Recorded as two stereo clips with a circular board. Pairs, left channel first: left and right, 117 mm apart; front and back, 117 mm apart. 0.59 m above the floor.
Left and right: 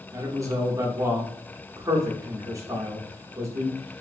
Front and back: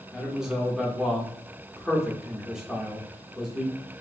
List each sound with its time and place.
0.1 s a man speaking: 100° right, 1.0 m